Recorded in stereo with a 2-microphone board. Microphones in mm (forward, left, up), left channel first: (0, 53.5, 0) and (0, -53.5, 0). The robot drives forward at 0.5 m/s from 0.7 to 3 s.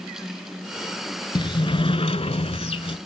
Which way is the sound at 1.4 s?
50° left (ahead or behind).